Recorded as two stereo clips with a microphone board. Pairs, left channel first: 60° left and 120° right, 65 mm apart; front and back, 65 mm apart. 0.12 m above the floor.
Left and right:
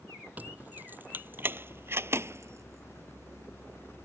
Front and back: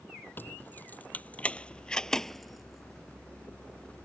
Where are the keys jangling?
55° right; by 4.0 s 140° right.